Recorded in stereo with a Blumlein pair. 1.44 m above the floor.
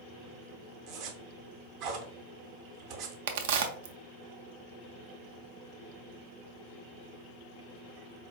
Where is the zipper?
45° right, 0.9 m.